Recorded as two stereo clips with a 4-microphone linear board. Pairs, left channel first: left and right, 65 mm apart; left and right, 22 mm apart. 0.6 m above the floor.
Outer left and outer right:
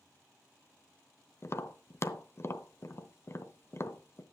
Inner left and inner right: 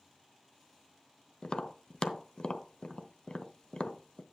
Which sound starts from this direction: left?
Tapping, at 1.4 s.